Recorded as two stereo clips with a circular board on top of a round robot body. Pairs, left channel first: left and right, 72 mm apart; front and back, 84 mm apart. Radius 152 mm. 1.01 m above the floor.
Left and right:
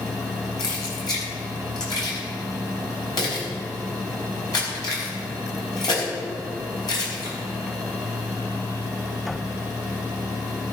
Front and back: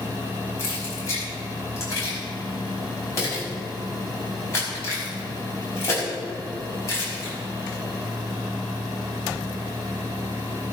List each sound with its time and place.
0.6 s keys jangling: 60° left, 5 m